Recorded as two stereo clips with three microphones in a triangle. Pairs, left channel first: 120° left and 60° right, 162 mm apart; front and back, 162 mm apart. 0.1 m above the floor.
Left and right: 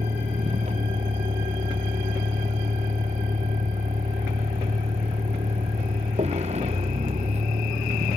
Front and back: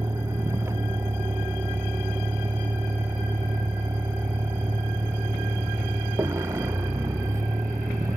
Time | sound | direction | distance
0.0 | a vehicle | 110° right | ?